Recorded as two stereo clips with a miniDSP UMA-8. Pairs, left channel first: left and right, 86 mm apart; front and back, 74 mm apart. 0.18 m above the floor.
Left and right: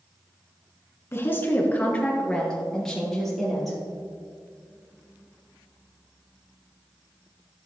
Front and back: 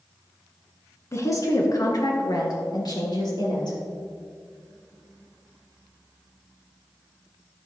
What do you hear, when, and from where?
1.1 s a woman speaking: 35° left, 1.7 m; by 3.8 s straight ahead, 4 m